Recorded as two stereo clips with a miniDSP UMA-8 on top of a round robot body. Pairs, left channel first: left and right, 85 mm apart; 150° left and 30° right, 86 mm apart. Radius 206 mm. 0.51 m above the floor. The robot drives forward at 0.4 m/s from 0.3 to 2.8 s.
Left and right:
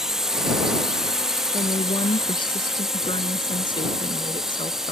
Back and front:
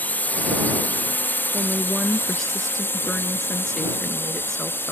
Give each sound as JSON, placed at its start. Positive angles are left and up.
{"t": 0.0, "sound": "a drone", "azimuth_deg": -170}
{"t": 1.5, "sound": "a woman speaking", "azimuth_deg": 65}